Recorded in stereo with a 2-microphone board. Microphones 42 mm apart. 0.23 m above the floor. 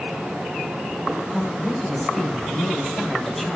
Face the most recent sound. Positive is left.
turn(degrees=5)  # may be behind; listen again after turning